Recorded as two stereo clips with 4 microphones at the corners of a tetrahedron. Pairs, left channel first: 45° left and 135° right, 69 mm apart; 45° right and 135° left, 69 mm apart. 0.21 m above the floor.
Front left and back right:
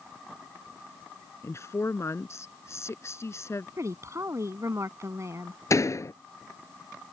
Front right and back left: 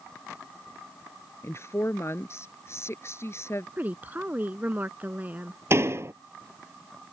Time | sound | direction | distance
1.4 | a woman speaking | straight ahead | ?
3.8 | a woman speaking | 165° right | ?
5.7 | a door slam | 85° left | ?